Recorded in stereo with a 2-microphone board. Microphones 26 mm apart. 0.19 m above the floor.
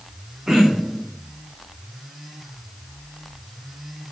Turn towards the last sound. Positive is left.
turn(degrees=-20)  # may be behind; listen again after turning